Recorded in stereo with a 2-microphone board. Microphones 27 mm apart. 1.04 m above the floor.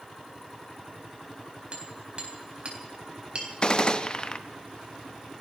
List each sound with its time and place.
1.7 s hammering: 45° right (ahead or behind), 3.5 m
3.6 s a gunshot: 40° left (ahead or behind), 0.8 m